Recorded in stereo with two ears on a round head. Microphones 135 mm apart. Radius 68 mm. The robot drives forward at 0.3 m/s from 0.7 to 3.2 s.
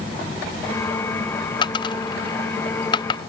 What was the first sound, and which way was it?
A dropped coin, 30° left (ahead or behind).